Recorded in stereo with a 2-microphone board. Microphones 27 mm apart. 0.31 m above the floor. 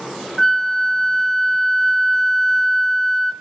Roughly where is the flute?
Centre.